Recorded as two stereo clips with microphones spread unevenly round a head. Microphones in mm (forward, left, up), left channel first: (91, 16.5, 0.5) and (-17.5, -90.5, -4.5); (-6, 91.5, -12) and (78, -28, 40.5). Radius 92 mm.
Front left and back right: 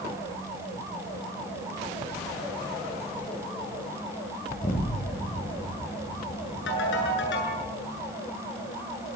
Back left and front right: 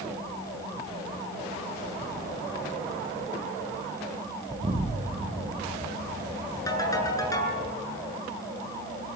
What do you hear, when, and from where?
4.5 s an explosion: 10° right, 7.5 m
6.7 s a ringtone: 55° left, 8.5 m